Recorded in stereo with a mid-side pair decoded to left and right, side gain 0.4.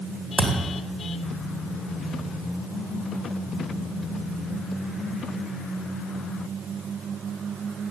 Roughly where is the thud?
Ahead right.